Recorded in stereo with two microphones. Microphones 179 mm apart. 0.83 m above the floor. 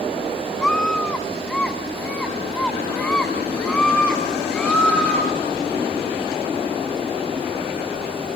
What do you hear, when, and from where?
0.6 s a scream: 5° left (ahead or behind), 1.1 m